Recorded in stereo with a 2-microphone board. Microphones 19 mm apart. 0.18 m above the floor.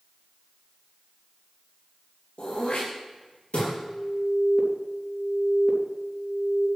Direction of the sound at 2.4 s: 70° left (ahead or behind).